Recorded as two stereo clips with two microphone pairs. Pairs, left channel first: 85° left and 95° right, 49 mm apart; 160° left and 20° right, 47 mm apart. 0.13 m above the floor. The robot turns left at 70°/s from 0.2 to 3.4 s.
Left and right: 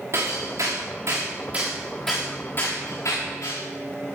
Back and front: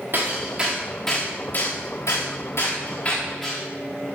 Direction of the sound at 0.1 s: 65° right.